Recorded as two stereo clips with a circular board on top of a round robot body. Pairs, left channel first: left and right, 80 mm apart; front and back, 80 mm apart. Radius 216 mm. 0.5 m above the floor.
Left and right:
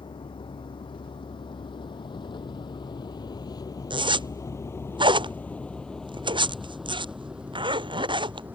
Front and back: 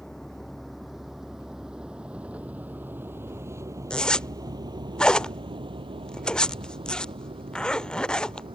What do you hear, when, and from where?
0.0 s a vehicle: 85° left; by 8.6 s 160° right
3.9 s a zipper: 80° right